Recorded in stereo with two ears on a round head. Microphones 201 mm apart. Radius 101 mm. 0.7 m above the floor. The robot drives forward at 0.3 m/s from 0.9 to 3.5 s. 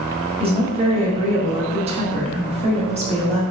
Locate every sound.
0.4 s a woman speaking: 25° right (ahead or behind), 1.0 m; by 3.4 s 30° right (ahead or behind), 1.0 m